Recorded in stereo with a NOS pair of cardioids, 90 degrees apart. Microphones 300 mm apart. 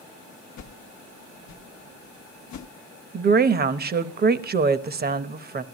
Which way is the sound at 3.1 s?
35° right.